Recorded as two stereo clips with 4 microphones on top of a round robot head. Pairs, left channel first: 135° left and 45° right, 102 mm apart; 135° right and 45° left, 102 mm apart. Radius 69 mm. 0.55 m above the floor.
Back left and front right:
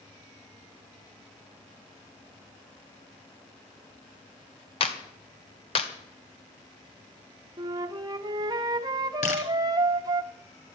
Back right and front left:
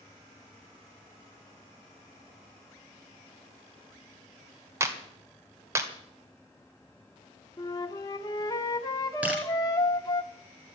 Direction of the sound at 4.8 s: 110° left.